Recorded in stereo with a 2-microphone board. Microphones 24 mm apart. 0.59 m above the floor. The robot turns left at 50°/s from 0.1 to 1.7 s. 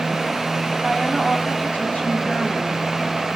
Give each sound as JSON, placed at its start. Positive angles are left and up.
{"t": 0.8, "sound": "a woman speaking", "azimuth_deg": 160, "distance_m": 4.0}